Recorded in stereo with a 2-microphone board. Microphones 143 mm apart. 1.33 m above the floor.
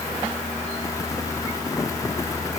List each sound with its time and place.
Only background noise.